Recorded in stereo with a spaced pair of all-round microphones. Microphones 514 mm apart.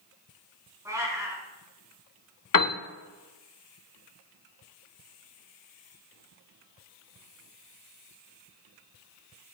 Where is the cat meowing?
5° right (ahead or behind), 3 m.